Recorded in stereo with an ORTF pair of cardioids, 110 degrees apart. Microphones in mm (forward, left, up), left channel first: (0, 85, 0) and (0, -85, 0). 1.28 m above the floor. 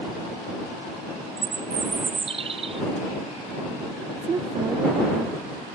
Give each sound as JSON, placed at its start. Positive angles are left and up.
{"t": 1.4, "sound": "a bird", "azimuth_deg": -35}
{"t": 4.2, "sound": "a woman speaking", "azimuth_deg": -30}